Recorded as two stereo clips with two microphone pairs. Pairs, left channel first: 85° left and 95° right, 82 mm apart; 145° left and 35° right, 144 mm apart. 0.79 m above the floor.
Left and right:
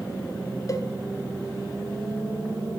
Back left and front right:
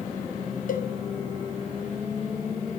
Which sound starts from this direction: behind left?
A cowbell, at 0.7 s.